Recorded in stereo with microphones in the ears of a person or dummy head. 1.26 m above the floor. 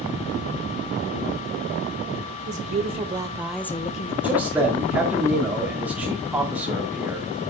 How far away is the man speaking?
About 2.5 m.